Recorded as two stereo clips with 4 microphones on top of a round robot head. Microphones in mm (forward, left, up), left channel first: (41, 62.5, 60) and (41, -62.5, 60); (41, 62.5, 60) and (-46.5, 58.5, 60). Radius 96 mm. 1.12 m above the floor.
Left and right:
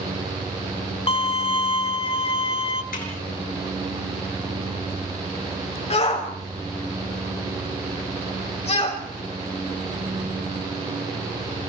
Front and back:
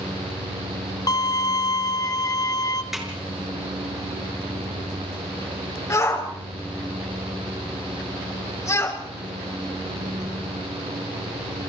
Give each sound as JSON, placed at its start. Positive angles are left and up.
{"t": 1.1, "sound": "a violin", "azimuth_deg": 50, "distance_m": 1.3}
{"t": 2.9, "sound": "a snare drum", "azimuth_deg": 95, "distance_m": 6.5}
{"t": 5.9, "sound": "a shout", "azimuth_deg": 55, "distance_m": 7.0}